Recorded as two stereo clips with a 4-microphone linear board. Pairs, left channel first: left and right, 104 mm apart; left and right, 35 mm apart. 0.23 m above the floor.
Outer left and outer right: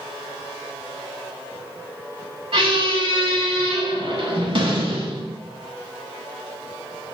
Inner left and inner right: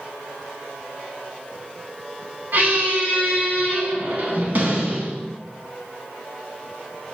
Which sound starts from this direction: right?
A squeak, at 2.5 s.